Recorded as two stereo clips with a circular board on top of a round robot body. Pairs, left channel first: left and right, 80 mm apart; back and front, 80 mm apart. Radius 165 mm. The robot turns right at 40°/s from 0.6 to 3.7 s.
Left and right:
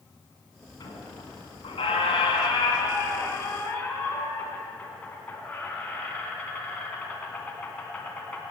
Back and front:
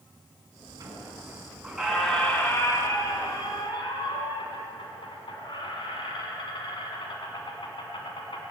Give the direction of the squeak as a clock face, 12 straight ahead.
10 o'clock.